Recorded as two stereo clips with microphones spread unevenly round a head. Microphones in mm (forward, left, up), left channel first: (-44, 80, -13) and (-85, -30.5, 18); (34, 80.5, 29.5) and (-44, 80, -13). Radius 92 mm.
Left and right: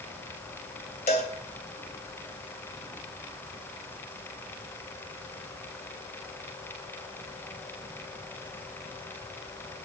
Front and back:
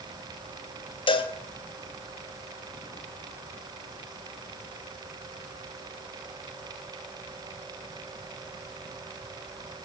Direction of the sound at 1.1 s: 15° left.